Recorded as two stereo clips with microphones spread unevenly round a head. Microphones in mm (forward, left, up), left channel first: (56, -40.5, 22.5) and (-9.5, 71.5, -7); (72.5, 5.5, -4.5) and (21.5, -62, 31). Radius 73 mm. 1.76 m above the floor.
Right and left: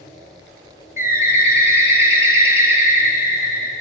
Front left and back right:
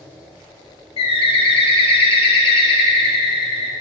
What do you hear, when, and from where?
1.0 s a bird: 45° left, 0.7 m